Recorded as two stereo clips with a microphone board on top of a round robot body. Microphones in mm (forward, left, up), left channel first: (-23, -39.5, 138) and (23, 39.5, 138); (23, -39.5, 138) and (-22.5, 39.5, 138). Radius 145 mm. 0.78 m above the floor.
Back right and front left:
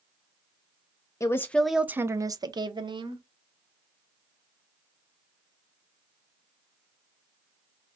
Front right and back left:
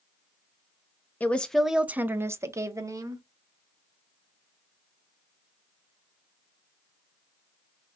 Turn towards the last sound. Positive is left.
turn(degrees=70)